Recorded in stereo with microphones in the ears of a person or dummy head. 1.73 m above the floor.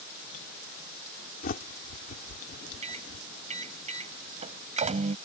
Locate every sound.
1.4 s a bird: 45° left (ahead or behind)
2.8 s a microwave: 40° right (ahead or behind)